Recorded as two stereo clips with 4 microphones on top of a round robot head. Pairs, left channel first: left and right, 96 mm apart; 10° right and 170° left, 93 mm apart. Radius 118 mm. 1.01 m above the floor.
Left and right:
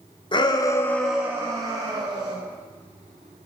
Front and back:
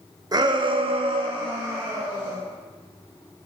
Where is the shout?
125° left, 1.0 m; by 2.3 s 125° right, 1.5 m.